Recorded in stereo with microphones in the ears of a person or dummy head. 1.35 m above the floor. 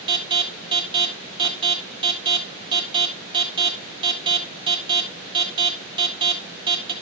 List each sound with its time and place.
0.1 s an alarm: 25° right (ahead or behind), 1.6 m